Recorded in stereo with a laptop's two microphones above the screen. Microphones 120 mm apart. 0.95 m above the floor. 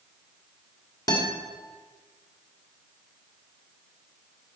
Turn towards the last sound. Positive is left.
turn(degrees=35)  # may be behind; listen again after turning